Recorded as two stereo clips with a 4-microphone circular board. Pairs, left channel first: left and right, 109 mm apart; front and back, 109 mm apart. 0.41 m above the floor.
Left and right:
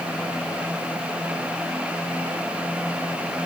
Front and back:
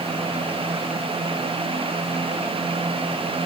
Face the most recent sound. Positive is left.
No sound to turn to.